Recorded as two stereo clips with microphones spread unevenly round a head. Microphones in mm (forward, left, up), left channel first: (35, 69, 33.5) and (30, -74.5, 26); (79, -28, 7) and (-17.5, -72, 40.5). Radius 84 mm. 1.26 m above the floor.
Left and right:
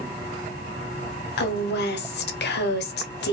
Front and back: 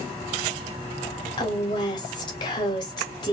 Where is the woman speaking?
85° left, 0.8 m.